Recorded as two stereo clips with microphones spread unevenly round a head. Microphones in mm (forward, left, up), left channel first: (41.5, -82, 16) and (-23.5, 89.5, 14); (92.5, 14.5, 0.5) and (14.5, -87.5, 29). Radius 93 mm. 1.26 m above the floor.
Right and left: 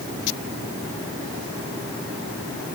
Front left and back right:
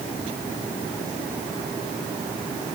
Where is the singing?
I don't hear singing.